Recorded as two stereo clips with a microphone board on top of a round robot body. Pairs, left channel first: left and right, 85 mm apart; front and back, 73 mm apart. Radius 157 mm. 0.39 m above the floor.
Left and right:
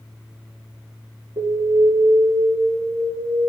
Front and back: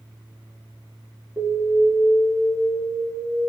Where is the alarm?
120° right, 4.5 m.